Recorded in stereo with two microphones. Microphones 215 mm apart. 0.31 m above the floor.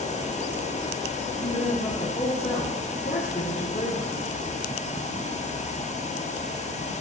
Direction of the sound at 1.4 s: 35° left (ahead or behind).